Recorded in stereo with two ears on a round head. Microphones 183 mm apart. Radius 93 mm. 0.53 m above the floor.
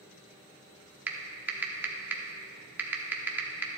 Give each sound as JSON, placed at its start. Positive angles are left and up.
{"t": 1.1, "sound": "typing on a keyboard", "side_deg": -10, "distance_m": 0.9}